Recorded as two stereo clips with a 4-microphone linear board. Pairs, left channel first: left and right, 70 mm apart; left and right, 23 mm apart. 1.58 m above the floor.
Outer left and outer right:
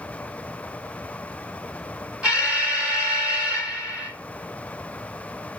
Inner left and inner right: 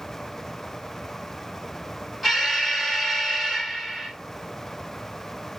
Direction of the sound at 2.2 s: 10° right (ahead or behind).